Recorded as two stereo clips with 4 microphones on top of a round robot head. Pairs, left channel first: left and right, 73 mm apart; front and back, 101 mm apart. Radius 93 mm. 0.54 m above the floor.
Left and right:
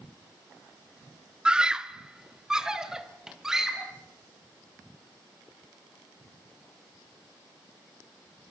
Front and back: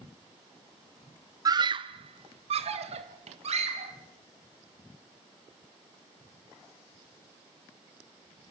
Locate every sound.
1.4 s a scream: 160° right, 0.9 m; by 3.9 s 170° right, 4 m